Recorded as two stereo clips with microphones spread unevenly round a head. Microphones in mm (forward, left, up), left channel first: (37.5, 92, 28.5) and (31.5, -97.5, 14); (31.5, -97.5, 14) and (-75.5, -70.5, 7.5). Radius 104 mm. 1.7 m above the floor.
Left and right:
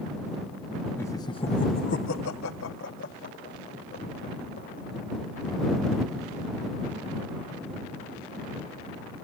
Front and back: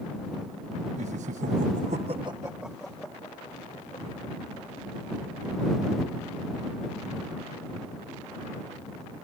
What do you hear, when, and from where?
1.0 s laughter: 165° left; by 4.9 s 45° left